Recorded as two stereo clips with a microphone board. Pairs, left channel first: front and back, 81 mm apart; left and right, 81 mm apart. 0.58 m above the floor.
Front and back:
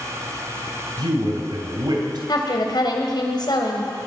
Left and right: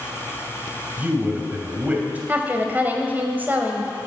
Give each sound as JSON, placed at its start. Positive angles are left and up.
{"t": 1.0, "sound": "a man speaking", "azimuth_deg": -160, "distance_m": 2.5}
{"t": 2.3, "sound": "a woman speaking", "azimuth_deg": -25, "distance_m": 2.5}